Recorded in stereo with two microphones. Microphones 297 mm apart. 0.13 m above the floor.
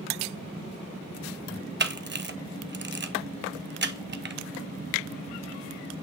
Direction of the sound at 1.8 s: 35° right (ahead or behind).